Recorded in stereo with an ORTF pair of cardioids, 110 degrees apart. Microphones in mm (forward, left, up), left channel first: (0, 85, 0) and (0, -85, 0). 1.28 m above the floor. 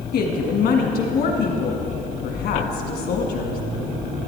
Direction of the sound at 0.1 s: 70° left.